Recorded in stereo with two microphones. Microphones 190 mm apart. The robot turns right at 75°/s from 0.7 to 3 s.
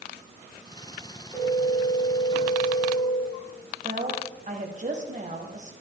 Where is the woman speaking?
45° right (ahead or behind), 1.7 m.